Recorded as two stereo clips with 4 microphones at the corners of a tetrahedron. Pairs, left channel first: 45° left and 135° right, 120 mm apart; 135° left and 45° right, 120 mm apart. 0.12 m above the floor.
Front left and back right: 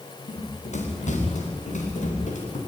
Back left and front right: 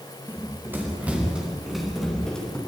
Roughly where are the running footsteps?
Ahead left.